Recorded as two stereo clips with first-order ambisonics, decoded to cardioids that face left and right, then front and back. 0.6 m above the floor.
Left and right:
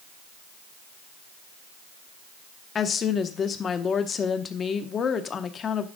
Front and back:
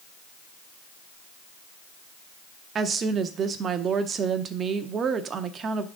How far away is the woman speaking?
About 0.7 m.